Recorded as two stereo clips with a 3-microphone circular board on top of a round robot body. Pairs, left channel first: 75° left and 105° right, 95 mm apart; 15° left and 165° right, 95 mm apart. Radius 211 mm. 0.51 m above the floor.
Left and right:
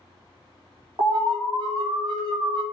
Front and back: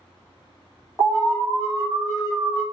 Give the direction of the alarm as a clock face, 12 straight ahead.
4 o'clock.